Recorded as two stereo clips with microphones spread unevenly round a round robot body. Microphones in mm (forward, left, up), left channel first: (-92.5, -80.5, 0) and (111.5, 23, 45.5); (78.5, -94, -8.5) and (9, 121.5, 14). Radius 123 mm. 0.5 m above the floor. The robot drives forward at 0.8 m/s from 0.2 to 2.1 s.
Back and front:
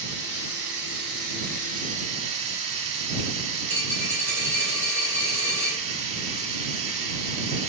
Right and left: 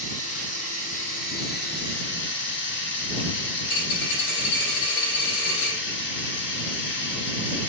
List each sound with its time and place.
0.0 s running water: 15° right, 2.5 m; by 7.7 s 35° right, 1.1 m
3.6 s a dropped coin: 70° right, 2.5 m